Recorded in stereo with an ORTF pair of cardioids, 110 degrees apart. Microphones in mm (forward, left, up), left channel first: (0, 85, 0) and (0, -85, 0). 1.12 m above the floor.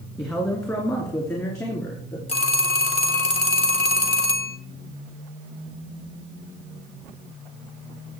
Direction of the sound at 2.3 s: 35° left.